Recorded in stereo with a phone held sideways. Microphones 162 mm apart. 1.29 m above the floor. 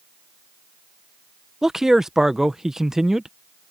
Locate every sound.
1.6 s a man speaking: centre (ahead or behind)